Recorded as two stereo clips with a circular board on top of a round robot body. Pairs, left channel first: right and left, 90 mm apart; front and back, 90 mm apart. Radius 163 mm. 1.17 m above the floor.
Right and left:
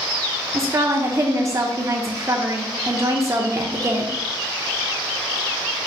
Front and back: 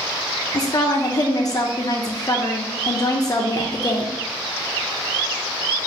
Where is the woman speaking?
40° left, 0.6 m.